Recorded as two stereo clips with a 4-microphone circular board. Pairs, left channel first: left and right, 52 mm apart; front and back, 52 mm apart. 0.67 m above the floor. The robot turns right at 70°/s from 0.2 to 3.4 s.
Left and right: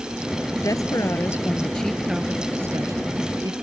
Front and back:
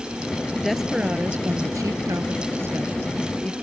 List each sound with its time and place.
0.6 s a woman speaking: 80° left; by 3.5 s 80° right